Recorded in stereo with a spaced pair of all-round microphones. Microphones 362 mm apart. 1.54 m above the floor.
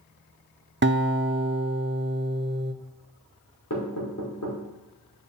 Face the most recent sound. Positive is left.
turn(degrees=55)  # may be behind; listen again after turning